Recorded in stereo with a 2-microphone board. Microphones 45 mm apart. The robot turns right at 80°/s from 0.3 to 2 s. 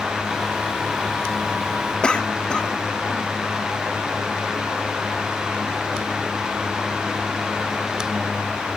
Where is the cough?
20° left (ahead or behind), 1.5 m.